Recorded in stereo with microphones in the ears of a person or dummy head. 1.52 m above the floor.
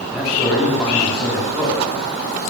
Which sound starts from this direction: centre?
A man speaking, at 0.1 s.